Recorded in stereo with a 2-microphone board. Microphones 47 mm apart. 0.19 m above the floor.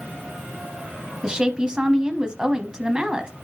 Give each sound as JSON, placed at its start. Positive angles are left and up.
{"t": 1.2, "sound": "a woman speaking", "side_deg": -20, "distance_m": 1.0}